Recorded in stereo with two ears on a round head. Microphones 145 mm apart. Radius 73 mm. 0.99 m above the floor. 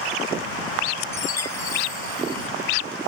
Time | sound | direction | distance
1.1 | a chime | 15° left (ahead or behind) | ?